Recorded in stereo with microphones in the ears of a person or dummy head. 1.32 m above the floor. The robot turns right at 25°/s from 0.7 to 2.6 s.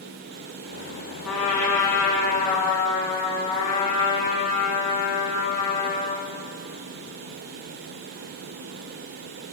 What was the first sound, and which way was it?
A trumpet, 5° left.